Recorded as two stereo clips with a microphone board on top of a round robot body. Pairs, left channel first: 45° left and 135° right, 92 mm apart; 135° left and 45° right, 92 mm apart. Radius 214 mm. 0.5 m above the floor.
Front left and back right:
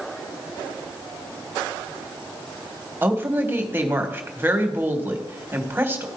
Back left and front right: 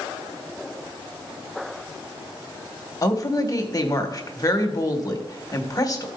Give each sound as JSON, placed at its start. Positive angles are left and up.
{"t": 3.0, "sound": "a woman speaking", "azimuth_deg": 165, "distance_m": 1.6}